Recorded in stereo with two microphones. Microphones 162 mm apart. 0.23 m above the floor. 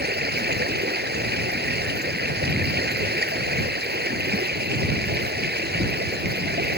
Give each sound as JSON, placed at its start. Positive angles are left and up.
{"t": 0.0, "sound": "running water", "side_deg": -75}